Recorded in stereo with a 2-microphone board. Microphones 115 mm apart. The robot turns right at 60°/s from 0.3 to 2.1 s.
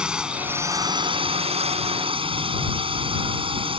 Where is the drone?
170° right; by 3.8 s 65° right.